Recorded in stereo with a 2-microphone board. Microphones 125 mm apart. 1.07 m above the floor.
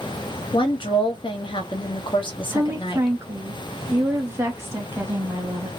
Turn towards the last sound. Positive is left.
turn(degrees=-20)  # may be behind; listen again after turning